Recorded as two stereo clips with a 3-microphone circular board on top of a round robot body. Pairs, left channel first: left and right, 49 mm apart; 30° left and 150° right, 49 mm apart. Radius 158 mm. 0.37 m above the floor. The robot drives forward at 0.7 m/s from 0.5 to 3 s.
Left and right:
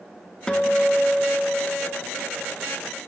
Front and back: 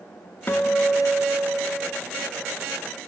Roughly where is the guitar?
Ahead.